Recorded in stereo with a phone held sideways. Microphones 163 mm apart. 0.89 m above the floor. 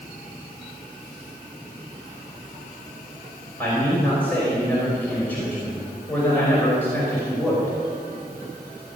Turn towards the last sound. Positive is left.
turn(degrees=10)  # may be behind; listen again after turning